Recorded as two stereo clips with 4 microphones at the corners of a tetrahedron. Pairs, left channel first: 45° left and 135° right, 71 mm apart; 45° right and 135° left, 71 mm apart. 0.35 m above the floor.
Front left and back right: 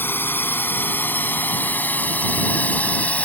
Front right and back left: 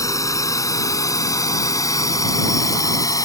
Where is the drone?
10° right; by 3.3 s 20° right.